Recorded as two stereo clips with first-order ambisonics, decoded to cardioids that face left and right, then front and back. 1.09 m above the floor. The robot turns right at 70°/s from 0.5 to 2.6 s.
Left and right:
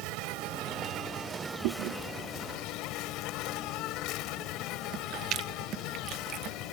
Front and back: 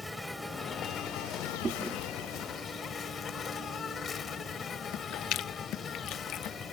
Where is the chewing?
110° right; by 6.6 s 40° right.